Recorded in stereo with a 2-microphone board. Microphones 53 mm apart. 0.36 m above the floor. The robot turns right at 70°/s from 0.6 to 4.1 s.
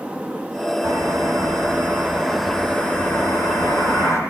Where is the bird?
115° right, 10 m; by 4.2 s 115° left, 10 m.